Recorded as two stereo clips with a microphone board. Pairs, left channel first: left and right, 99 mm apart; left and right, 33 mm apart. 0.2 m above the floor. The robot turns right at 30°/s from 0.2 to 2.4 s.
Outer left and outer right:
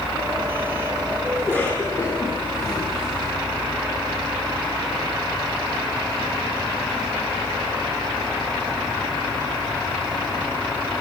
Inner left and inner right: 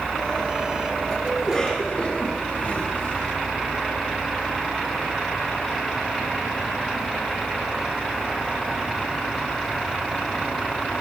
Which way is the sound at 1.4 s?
5° left (ahead or behind).